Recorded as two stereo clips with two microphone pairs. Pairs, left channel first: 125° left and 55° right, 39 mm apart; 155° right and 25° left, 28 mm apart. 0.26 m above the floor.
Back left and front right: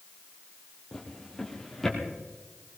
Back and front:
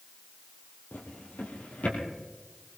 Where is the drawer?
150° right, 3.5 m.